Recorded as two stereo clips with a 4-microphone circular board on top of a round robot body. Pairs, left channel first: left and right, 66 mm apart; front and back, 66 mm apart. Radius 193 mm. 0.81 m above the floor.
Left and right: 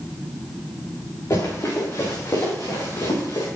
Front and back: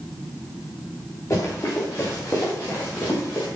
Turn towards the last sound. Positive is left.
turn(degrees=60)